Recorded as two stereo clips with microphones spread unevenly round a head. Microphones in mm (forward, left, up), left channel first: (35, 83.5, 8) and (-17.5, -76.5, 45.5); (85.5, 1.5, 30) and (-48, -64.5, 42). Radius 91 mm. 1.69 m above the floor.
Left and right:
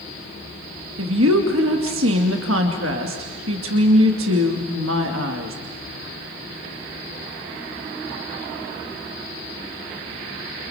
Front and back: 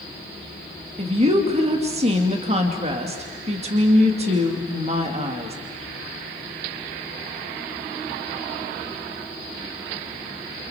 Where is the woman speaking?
110° right, 2.5 m.